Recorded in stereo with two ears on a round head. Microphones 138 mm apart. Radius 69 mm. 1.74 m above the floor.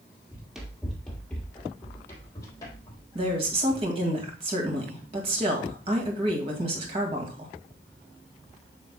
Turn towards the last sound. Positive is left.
turn(degrees=-40)  # may be behind; listen again after turning